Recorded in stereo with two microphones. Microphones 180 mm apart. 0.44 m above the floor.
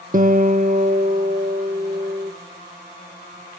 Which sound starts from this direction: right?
A guitar, at 0.1 s.